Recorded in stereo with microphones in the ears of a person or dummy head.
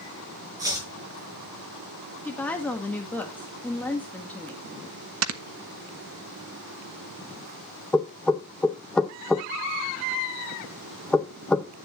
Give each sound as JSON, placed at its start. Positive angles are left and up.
{"t": 0.6, "sound": "chopping", "side_deg": -15, "distance_m": 6.0}
{"t": 2.2, "sound": "a woman speaking", "side_deg": 10, "distance_m": 1.6}
{"t": 5.2, "sound": "snoring", "side_deg": -80, "distance_m": 1.3}
{"t": 7.9, "sound": "knocking", "side_deg": 0, "distance_m": 0.8}